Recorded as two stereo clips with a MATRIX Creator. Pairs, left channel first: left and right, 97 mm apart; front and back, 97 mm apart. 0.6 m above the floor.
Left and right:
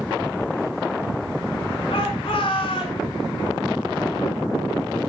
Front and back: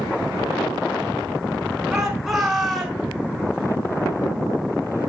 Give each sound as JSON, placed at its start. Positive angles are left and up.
{"t": 1.9, "sound": "a shout", "azimuth_deg": 95, "distance_m": 5.0}